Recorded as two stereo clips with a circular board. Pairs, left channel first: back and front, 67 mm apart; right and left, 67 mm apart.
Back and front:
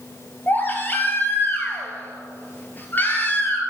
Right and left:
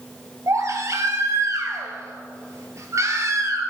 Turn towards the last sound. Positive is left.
turn(degrees=120)